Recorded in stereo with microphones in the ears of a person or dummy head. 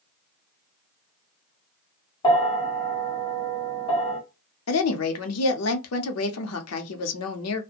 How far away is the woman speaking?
About 0.7 m.